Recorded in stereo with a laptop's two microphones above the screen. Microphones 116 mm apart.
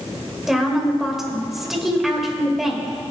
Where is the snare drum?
No snare drum in this recording.